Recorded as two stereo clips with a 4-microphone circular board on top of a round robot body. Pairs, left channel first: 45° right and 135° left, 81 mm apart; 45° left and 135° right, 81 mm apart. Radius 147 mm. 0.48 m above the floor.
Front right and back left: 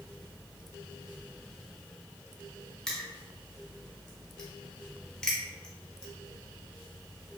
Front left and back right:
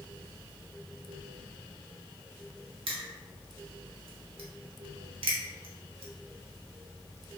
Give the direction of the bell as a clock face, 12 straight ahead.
No bell in this recording.